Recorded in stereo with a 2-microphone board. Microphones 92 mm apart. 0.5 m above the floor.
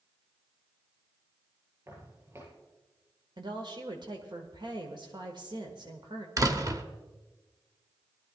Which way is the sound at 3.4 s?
55° right (ahead or behind).